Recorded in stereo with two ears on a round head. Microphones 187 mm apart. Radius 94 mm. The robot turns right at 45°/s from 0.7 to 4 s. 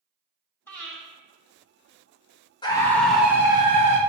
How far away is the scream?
About 1.5 m.